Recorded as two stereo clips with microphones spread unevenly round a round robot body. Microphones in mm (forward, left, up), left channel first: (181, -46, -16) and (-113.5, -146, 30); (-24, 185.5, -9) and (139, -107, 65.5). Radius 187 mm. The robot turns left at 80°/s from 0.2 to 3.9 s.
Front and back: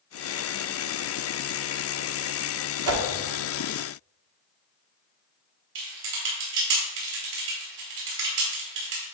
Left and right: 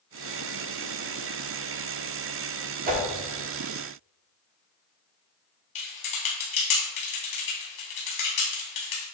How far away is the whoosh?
About 1.1 m.